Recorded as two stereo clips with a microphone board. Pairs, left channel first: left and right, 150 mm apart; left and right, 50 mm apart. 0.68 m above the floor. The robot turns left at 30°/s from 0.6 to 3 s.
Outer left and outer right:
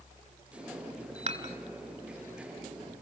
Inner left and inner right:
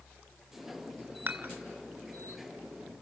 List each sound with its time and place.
1.3 s dishes clattering: 50° right (ahead or behind), 1.5 m; by 1.5 s 40° right (ahead or behind), 1.5 m